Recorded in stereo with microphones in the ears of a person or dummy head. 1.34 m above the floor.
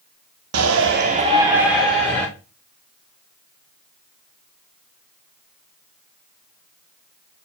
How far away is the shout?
About 0.9 m.